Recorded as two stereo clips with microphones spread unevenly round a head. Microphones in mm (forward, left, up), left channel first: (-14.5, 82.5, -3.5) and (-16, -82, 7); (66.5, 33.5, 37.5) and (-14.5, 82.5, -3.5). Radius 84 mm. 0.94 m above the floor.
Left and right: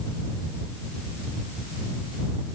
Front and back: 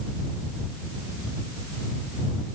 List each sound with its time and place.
Only background noise.